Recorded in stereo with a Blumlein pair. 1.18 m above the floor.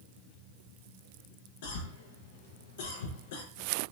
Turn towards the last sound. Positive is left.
turn(degrees=50)